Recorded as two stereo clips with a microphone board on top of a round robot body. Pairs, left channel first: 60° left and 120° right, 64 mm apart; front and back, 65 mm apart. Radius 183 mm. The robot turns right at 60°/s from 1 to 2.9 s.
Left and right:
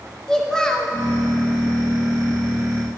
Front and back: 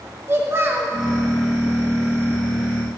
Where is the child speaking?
135° left, 0.8 m.